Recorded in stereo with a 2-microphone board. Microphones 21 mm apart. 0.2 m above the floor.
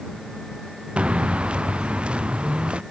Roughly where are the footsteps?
Right.